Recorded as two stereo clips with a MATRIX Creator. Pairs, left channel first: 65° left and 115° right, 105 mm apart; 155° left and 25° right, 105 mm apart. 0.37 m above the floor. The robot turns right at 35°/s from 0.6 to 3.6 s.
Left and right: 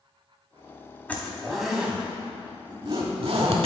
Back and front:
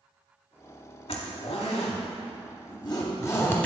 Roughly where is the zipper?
Behind left.